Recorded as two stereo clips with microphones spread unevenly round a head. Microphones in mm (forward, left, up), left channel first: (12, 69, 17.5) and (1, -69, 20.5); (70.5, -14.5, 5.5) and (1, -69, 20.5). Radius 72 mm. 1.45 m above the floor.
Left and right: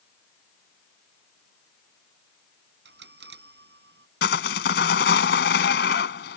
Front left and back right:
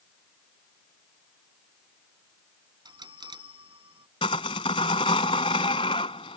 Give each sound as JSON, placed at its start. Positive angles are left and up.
{"t": 2.9, "sound": "a bell", "azimuth_deg": -105}
{"t": 4.2, "sound": "sawing", "azimuth_deg": 100}